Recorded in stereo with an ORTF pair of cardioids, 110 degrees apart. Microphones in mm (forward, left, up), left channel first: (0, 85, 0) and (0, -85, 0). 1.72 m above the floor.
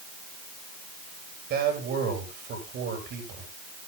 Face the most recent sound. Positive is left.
turn(degrees=-65)